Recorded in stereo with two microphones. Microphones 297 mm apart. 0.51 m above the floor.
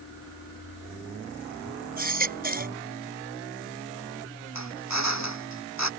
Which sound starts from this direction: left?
A drill, at 4.5 s.